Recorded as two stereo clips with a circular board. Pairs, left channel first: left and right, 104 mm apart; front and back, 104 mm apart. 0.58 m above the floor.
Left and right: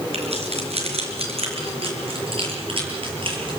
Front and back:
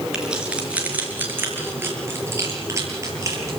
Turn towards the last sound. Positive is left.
turn(degrees=-120)